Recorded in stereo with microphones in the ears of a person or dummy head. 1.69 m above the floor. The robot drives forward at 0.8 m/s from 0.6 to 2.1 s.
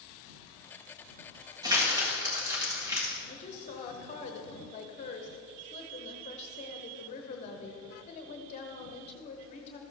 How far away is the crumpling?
About 1.9 m.